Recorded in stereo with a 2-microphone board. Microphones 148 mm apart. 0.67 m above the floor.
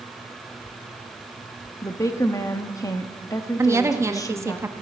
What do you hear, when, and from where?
1.8 s a woman speaking: 20° left (ahead or behind), 0.9 m
3.6 s a woman speaking: 20° right (ahead or behind), 0.8 m